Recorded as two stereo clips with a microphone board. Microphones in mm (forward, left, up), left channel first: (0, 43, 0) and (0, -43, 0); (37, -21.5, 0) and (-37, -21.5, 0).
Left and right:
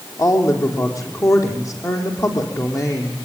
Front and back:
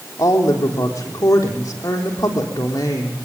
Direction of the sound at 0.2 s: 40° left.